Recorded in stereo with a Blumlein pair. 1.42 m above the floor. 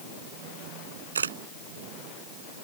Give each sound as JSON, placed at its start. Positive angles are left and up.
{"t": 1.1, "sound": "a camera shutter", "azimuth_deg": -70}